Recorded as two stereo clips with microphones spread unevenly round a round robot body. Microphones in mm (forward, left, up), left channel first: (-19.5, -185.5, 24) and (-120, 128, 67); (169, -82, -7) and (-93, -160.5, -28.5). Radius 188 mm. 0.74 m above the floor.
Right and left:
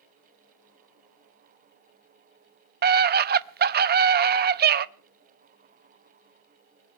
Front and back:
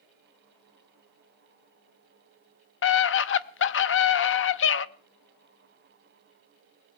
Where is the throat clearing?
No throat clearing in this recording.